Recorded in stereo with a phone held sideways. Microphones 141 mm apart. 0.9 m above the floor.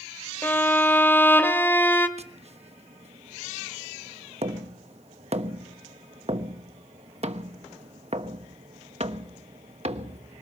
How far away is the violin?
About 1.7 m.